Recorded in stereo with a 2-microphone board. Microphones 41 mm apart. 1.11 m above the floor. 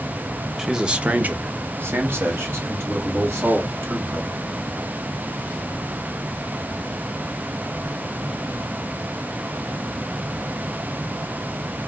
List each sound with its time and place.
0.6 s a man speaking: 10° right (ahead or behind), 0.7 m; by 4.4 s 80° right, 2.5 m